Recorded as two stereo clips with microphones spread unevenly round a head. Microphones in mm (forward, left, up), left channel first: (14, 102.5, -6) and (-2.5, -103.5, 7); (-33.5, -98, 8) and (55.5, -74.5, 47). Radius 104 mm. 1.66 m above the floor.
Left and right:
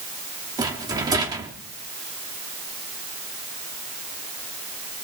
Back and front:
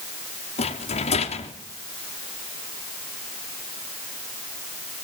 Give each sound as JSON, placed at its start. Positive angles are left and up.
{"t": 0.6, "sound": "a rattle", "azimuth_deg": -165, "distance_m": 3.0}